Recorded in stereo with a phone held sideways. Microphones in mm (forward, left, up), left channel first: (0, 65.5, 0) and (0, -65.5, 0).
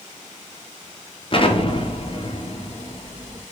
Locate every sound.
1.3 s an explosion: 40° left (ahead or behind), 0.5 m